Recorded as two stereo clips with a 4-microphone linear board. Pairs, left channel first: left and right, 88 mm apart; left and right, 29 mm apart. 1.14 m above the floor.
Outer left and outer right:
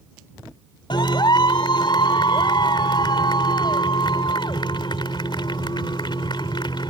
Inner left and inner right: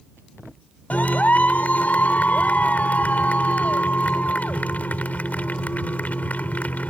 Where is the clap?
65° left (ahead or behind).